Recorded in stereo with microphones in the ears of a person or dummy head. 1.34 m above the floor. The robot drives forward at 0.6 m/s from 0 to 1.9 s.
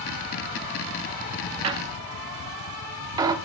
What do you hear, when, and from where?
1.6 s a squeak: 25° right (ahead or behind), 0.6 m; by 3.4 s 20° right (ahead or behind), 0.7 m